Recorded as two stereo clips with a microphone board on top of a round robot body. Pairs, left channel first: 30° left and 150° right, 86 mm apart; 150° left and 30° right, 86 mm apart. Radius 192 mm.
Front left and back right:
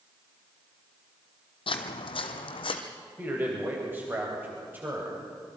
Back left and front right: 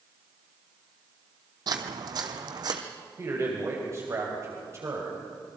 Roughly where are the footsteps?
Ahead.